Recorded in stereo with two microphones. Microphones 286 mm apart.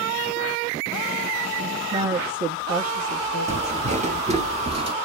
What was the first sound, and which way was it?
A woman speaking, 20° right (ahead or behind).